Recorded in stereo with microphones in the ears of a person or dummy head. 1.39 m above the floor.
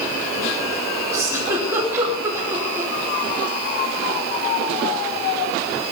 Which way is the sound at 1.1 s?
15° right (ahead or behind).